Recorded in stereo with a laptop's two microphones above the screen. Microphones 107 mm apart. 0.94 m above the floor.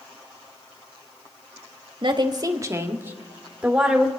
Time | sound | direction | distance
2.0 | a woman speaking | 50° right (ahead or behind) | 1.7 m